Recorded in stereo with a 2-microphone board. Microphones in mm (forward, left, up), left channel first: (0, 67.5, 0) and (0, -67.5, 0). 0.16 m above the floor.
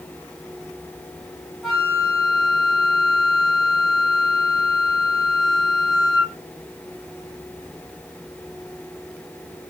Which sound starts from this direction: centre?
A flute, at 1.6 s.